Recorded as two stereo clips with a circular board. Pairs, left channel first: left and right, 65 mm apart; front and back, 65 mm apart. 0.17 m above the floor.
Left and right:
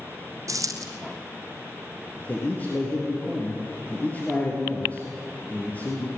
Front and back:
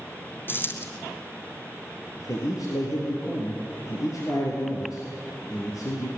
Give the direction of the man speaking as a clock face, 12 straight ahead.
11 o'clock.